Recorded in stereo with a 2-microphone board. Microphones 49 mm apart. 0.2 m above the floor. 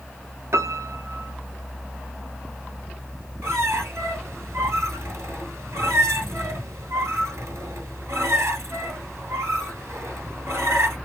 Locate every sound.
0.5 s a piano: 65° right (ahead or behind), 0.8 m
3.4 s a squeak: 75° right (ahead or behind), 1.3 m